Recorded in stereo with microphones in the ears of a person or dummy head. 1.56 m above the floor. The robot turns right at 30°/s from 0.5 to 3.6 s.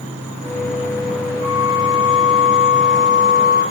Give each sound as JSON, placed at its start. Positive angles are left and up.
{"t": 1.4, "sound": "a flute", "azimuth_deg": 145, "distance_m": 4.0}